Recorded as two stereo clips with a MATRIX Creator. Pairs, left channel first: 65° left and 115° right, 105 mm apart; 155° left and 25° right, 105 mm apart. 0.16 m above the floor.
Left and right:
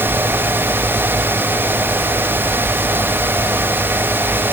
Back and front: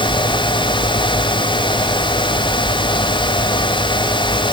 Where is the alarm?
I don't hear an alarm.